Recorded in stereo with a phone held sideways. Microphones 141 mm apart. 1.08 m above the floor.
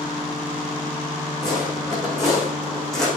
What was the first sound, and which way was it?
Footsteps, 5° left (ahead or behind).